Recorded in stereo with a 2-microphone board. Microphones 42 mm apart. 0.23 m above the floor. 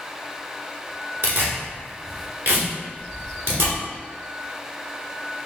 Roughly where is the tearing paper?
Right.